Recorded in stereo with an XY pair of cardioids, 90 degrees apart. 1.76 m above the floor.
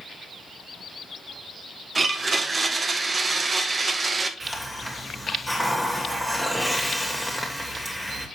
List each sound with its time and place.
1.9 s a blender: 35° right, 1.0 m
4.4 s a hiss: straight ahead, 2 m